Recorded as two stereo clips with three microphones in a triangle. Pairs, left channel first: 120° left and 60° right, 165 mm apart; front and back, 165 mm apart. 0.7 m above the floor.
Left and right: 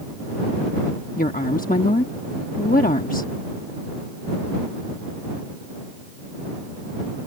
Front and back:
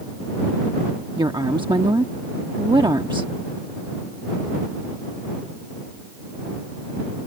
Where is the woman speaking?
125° left.